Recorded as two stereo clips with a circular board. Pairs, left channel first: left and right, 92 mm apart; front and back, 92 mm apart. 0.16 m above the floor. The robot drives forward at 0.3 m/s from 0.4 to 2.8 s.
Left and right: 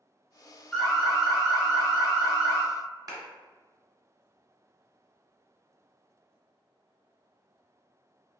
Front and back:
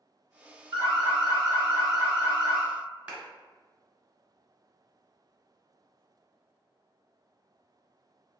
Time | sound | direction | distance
0.7 | an alarm | 175° left | 1.9 m
3.1 | a clap | 105° right | 1.4 m